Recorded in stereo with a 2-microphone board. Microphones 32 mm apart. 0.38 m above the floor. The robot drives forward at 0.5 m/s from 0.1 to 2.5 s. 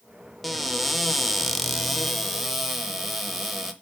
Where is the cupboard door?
5° left (ahead or behind), 0.6 m; by 3.7 s centre (ahead or behind), 0.9 m.